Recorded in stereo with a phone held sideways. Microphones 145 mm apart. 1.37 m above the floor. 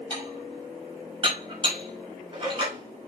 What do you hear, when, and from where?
0.1 s dishes clattering: 35° right (ahead or behind), 5.5 m